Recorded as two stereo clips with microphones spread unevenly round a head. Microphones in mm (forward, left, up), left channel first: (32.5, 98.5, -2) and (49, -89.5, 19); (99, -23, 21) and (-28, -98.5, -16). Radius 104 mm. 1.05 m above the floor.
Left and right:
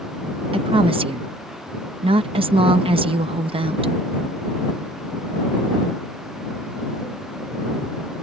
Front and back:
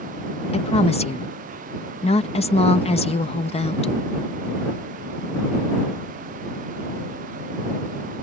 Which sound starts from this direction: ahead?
A woman speaking, at 0.5 s.